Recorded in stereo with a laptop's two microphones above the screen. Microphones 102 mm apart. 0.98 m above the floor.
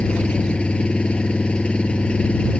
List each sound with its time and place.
0.0 s an engine running: 10° left (ahead or behind)